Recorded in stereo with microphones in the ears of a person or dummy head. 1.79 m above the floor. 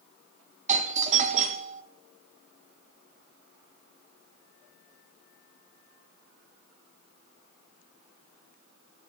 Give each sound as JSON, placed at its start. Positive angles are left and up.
{"t": 0.7, "sound": "a doorbell", "side_deg": -35, "distance_m": 0.9}